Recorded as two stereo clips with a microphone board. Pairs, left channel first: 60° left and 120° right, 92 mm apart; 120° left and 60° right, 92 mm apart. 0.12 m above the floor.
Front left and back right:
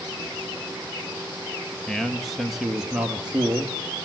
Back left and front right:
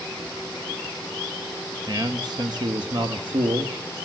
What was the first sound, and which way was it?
A man speaking, 25° right.